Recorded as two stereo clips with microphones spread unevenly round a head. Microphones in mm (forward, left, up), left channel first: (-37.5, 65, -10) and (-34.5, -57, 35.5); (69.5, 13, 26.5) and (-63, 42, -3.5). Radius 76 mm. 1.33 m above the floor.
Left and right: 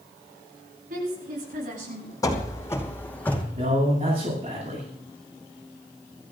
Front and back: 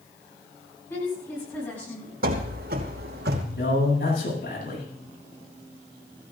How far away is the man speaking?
About 8.5 m.